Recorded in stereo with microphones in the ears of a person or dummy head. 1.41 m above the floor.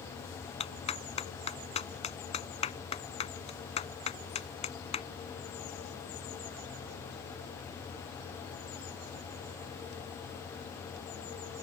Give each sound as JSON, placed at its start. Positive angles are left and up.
{"t": 0.6, "sound": "a clap", "side_deg": 35}